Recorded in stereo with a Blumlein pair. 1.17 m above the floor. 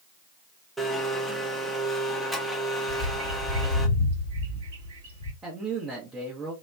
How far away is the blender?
About 0.7 m.